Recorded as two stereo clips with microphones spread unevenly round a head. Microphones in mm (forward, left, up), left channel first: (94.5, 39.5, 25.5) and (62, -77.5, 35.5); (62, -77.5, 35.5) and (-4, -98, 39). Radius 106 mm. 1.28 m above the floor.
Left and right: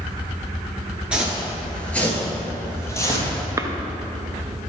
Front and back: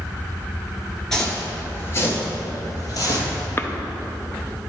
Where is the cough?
40° right, 0.8 m.